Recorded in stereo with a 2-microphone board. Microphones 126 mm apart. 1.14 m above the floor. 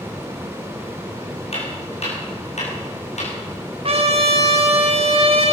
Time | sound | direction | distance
1.5 | footsteps | 60° left (ahead or behind) | 5 m
3.8 | a trumpet | 55° right (ahead or behind) | 2.5 m